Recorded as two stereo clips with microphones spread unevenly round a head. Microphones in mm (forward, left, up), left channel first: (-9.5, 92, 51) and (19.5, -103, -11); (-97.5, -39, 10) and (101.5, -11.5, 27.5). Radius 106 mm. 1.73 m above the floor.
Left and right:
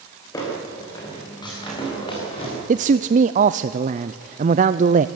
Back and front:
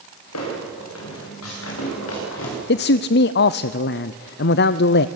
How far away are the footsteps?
About 10 m.